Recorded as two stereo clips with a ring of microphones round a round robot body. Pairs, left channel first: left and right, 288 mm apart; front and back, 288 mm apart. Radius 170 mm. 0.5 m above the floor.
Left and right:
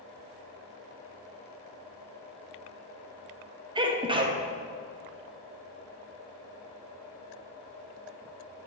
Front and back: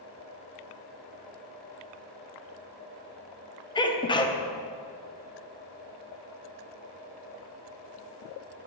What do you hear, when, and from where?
3.8 s a sneeze: 45° right, 0.9 m